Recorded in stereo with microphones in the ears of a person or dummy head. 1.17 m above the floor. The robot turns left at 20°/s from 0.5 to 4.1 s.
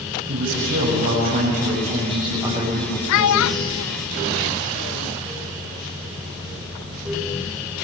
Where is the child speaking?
70° left (ahead or behind), 0.6 m; by 5.1 s 80° left, 0.6 m.